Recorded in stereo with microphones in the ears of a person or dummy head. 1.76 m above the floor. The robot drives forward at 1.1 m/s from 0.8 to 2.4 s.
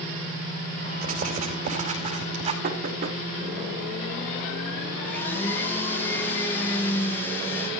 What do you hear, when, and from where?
1.0 s writing: 50° right (ahead or behind), 4 m; by 2.5 s 35° right (ahead or behind), 5 m
2.6 s knocking: 50° right (ahead or behind), 3.5 m
5.0 s a blender: 10° left (ahead or behind), 3 m